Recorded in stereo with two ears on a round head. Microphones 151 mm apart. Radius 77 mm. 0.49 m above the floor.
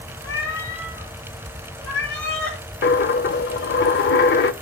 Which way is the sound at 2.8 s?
60° left (ahead or behind).